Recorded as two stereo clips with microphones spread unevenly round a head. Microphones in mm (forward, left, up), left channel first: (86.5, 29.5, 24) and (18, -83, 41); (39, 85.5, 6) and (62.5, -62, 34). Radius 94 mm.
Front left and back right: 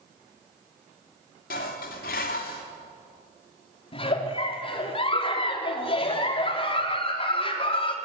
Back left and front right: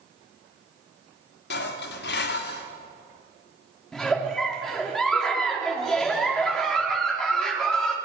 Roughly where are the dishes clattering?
Left.